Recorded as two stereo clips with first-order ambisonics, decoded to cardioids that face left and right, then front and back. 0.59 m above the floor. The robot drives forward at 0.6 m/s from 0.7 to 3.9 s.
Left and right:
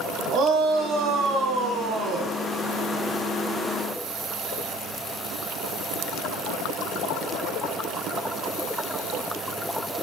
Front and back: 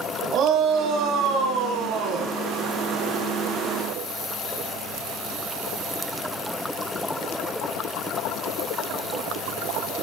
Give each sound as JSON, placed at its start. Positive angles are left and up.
{"t": 0.3, "sound": "a shout", "azimuth_deg": -135, "distance_m": 3.5}